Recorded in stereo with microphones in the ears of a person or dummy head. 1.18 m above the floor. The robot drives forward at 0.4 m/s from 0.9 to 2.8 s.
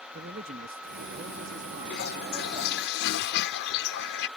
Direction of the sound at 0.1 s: 45° right (ahead or behind).